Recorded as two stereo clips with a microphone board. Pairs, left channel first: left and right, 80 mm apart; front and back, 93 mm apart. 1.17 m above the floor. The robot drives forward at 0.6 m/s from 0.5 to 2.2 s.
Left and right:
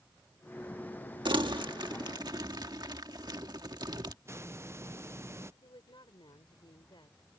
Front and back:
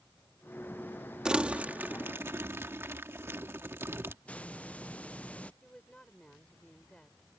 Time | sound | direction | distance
1.2 | crumpling | 100° right | ?
4.2 | a hiss | 65° right | ?
5.6 | a woman speaking | 80° left | ?